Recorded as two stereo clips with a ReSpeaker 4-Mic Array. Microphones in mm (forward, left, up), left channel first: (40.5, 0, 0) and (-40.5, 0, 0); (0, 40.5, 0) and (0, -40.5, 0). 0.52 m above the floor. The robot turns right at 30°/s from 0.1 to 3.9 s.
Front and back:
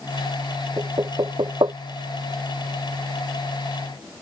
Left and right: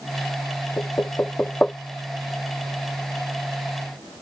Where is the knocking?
140° left; by 1.8 s 170° left.